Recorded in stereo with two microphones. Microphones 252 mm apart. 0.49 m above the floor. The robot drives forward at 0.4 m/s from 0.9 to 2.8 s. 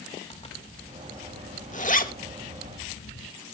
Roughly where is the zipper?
Left.